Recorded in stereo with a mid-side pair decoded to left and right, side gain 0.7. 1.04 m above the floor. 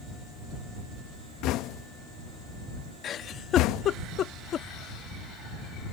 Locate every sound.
1.4 s knocking: 60° left
3.0 s a giggle: 40° left